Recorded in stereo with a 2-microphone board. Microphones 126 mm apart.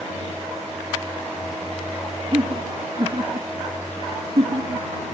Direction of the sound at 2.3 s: 40° right (ahead or behind).